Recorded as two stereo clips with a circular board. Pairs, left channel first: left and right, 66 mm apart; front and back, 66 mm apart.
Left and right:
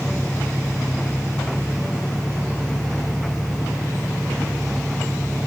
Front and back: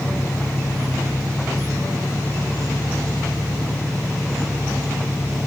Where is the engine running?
20° left.